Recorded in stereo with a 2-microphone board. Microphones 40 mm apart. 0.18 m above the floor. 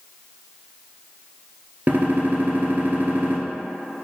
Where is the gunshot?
45° right (ahead or behind), 0.7 m.